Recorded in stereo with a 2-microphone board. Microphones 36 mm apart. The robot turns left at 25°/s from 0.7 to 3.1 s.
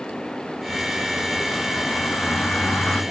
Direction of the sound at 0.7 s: 115° left.